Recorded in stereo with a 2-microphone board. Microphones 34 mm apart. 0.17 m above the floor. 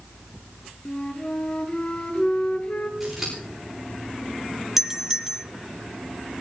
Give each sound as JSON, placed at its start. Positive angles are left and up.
{"t": 0.8, "sound": "a flute", "side_deg": 35, "distance_m": 1.8}
{"t": 3.0, "sound": "scissors", "side_deg": 0, "distance_m": 9.5}
{"t": 4.8, "sound": "a doorbell", "side_deg": -10, "distance_m": 1.5}